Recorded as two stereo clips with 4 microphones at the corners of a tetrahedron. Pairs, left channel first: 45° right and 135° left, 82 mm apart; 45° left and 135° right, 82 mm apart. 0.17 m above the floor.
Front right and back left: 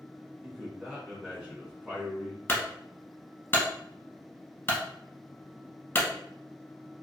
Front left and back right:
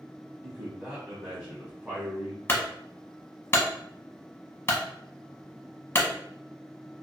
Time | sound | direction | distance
0.4 | a man speaking | straight behind | 1.3 m
2.5 | a clunk | straight ahead | 0.8 m